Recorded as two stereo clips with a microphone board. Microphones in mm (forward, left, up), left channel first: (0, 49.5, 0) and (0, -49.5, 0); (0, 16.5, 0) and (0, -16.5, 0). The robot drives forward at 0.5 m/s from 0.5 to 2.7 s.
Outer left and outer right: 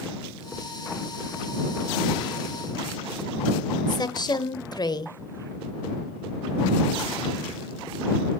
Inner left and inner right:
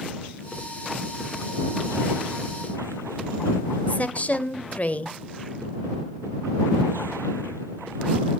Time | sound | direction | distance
3.9 | a woman speaking | 40° left (ahead or behind) | 1.1 m